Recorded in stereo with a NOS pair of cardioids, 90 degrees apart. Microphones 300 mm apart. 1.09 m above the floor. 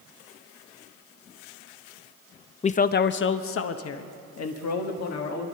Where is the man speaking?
20° left, 0.5 m; by 5.5 s 60° left, 2.0 m.